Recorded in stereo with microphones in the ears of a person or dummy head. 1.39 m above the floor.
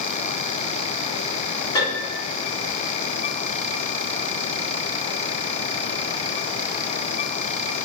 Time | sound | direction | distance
1.8 | a piano | 25° left (ahead or behind) | 1.3 m